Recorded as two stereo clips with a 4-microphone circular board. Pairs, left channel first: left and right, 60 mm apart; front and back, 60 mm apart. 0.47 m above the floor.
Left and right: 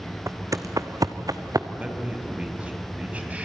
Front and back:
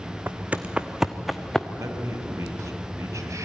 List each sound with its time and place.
0.3 s footsteps: 125° right, 1.2 m; by 1.7 s 80° right, 1.6 m
1.8 s a man speaking: 155° right, 3.5 m